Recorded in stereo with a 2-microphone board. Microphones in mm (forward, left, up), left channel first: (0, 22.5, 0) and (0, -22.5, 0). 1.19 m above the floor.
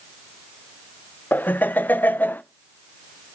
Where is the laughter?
40° left (ahead or behind), 0.5 m.